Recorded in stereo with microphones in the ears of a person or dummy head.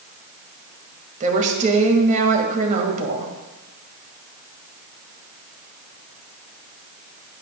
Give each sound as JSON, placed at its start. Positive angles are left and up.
{"t": 1.2, "sound": "a woman speaking", "side_deg": -40, "distance_m": 1.7}